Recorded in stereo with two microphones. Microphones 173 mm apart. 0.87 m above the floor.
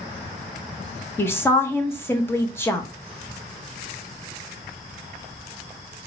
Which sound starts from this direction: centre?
A woman speaking, at 1.2 s.